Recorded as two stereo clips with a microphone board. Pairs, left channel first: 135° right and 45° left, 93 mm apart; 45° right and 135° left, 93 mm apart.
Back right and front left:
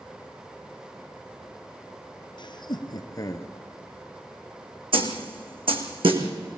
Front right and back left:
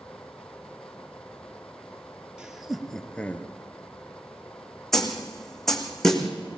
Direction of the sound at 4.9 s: 40° left.